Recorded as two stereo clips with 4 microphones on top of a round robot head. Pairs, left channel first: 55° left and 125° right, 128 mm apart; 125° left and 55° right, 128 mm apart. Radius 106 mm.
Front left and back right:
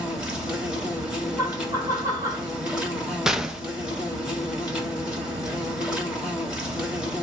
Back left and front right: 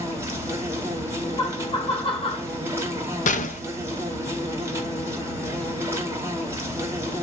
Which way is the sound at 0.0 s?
55° right.